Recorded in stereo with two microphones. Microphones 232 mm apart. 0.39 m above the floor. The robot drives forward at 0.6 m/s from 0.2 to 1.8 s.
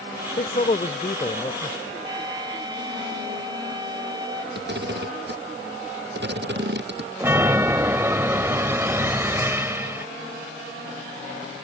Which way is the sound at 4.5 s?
50° right (ahead or behind).